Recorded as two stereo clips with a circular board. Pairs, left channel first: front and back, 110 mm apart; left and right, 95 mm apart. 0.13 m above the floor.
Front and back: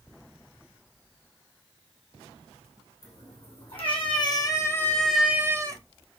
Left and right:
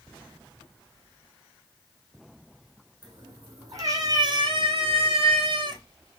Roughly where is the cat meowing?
Ahead right.